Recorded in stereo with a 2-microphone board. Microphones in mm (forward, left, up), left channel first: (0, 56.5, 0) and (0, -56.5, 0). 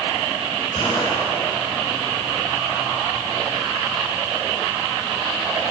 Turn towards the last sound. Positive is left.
turn(degrees=50)  # may be behind; listen again after turning